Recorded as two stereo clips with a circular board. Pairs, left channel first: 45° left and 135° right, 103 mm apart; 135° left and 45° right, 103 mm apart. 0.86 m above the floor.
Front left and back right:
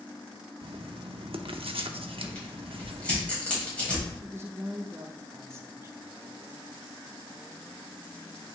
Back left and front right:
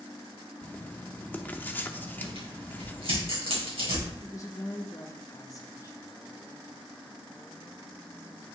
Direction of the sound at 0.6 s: 155° right.